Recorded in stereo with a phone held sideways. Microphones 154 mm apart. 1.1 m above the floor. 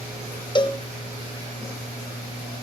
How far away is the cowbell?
About 0.8 m.